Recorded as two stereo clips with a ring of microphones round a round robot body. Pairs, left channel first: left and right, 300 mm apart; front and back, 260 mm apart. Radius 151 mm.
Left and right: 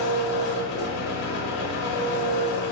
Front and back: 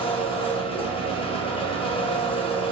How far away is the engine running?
About 0.8 m.